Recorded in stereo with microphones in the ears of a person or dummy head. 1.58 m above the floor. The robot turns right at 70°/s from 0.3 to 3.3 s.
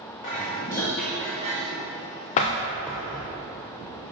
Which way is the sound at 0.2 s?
130° left.